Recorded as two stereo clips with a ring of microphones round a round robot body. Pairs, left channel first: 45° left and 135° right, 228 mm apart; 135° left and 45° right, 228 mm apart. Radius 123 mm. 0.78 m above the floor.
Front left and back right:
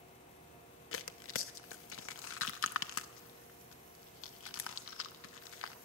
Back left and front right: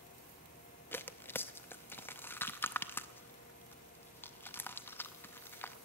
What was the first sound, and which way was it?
Tearing paper, 55° left.